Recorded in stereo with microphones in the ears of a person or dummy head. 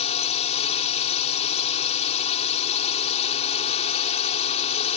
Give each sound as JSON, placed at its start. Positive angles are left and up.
{"t": 0.0, "sound": "a drone", "side_deg": 35}